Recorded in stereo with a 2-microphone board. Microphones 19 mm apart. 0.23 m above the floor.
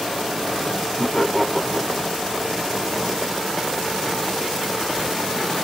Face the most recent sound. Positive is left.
turn(degrees=10)  # may be behind; listen again after turning